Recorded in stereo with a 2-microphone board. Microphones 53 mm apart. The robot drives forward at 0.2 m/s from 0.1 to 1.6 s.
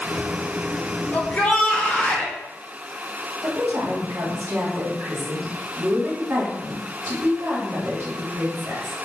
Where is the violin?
I don't hear a violin.